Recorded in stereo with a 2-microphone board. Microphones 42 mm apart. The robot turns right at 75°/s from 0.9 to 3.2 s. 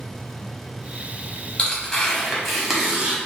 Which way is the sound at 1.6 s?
20° left (ahead or behind).